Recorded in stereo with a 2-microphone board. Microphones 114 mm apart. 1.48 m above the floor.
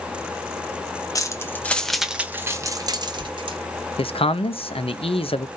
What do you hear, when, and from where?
1.1 s keys jangling: 30° left (ahead or behind), 0.8 m; by 3.6 s 55° right (ahead or behind), 1.0 m
4.0 s a man speaking: 65° left (ahead or behind), 0.5 m